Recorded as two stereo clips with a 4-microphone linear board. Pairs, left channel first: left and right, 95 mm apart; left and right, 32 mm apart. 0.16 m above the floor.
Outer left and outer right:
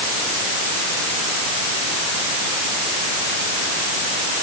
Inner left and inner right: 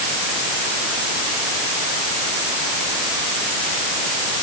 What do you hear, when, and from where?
Only background noise.